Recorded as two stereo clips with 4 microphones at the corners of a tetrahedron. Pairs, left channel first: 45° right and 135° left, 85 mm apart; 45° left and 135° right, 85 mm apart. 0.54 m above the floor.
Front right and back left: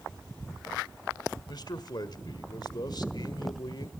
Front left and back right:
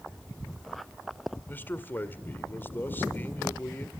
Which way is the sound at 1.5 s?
20° right.